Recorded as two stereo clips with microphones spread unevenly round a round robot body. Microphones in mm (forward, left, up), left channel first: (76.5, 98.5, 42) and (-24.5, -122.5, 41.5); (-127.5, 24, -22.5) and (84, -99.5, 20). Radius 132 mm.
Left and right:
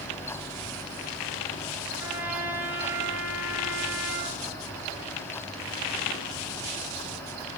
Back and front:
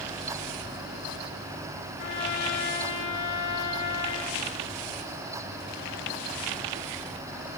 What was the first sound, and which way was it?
A trumpet, 160° left.